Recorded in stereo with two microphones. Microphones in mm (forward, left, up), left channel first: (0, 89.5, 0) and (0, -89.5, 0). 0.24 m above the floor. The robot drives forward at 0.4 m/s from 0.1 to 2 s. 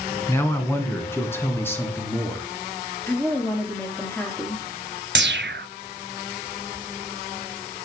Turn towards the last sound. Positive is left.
turn(degrees=-85)